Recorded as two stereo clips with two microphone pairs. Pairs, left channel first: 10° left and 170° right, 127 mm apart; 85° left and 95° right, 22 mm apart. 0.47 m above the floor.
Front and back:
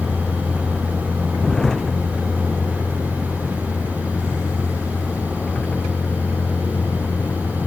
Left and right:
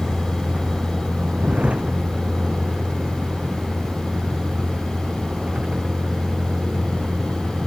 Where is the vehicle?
75° right; by 7.7 s 70° right.